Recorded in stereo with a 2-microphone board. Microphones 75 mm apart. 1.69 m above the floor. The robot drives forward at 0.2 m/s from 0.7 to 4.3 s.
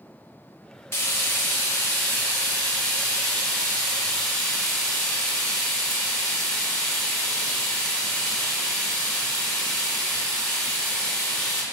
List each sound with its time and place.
0.9 s frying: 30° left (ahead or behind), 0.8 m; by 11.6 s 15° left (ahead or behind), 1.3 m